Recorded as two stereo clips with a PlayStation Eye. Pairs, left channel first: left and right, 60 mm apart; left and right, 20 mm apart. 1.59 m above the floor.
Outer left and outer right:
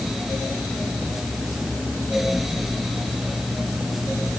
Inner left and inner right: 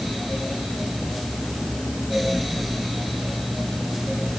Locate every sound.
Only background noise.